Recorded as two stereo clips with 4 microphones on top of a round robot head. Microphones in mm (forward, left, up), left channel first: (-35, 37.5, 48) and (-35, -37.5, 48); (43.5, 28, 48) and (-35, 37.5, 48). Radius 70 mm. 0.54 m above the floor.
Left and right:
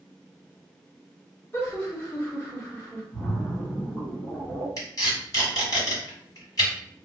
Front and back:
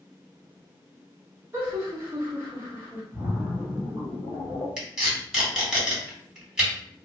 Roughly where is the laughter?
Behind left.